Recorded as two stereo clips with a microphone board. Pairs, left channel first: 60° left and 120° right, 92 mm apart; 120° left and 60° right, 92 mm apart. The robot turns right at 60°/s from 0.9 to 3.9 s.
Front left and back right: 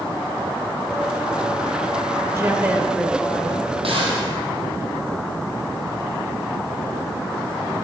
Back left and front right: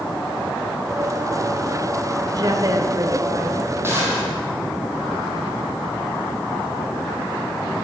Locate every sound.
2.3 s a woman speaking: 80° right, 1.4 m; by 3.7 s straight ahead, 1.4 m
3.8 s a gunshot: 125° right, 3 m; by 4.3 s 120° right, 3 m